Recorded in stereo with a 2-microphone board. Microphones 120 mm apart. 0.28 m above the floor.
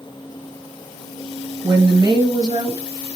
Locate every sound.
1.6 s a woman speaking: 35° right (ahead or behind), 1.1 m